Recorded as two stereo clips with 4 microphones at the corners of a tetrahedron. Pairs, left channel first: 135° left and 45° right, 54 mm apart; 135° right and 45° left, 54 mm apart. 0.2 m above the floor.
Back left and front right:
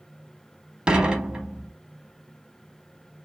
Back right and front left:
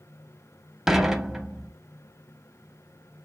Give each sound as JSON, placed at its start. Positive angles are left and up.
{"t": 0.9, "sound": "dishes clattering", "azimuth_deg": -25, "distance_m": 0.7}